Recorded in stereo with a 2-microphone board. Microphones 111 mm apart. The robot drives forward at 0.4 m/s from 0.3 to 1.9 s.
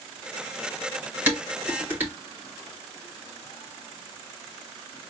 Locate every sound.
1.3 s dishes clattering: 15° right (ahead or behind), 2 m